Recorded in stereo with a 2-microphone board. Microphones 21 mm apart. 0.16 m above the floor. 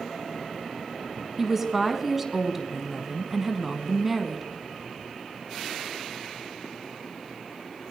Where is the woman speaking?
15° right (ahead or behind), 1.1 m.